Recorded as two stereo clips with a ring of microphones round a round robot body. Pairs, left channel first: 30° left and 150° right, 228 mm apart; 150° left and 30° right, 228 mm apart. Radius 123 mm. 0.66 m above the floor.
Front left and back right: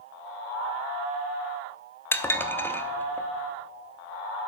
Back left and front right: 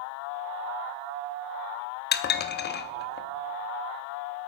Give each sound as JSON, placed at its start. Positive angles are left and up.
{"t": 2.1, "sound": "dishes clattering", "azimuth_deg": 110, "distance_m": 0.7}